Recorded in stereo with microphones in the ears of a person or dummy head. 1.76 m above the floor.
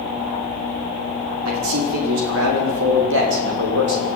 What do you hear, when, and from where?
1.4 s a man speaking: 85° right, 6 m; by 4.1 s 65° right (ahead or behind), 7 m